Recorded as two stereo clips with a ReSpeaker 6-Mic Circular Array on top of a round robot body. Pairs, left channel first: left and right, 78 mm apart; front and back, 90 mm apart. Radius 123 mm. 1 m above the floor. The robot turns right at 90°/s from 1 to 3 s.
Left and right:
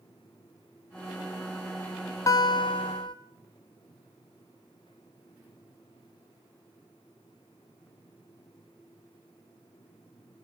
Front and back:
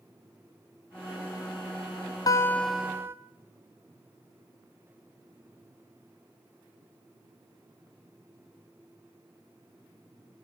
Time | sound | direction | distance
2.3 | a guitar | 50° left | 0.8 m